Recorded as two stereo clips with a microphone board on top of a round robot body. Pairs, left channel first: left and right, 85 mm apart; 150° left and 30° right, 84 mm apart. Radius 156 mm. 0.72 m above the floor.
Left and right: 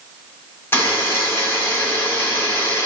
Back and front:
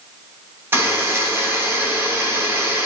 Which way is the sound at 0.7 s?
30° left.